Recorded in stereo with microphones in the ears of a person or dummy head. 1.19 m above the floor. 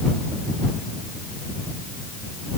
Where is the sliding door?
No sliding door in this recording.